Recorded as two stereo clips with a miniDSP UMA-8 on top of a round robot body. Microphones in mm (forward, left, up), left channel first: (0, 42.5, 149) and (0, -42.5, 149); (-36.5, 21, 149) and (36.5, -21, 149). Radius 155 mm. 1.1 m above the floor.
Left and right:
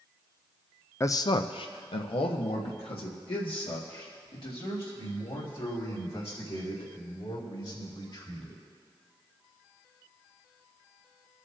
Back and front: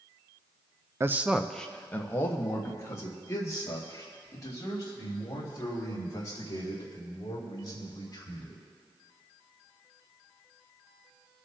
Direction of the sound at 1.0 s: 30° left.